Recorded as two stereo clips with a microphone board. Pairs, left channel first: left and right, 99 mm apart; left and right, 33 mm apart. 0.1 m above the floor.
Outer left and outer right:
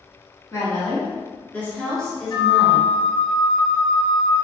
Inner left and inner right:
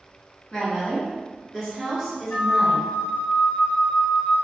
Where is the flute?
60° left (ahead or behind), 0.7 m.